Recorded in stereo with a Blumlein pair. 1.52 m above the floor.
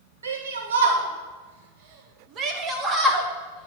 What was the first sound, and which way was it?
A shout, 70° right.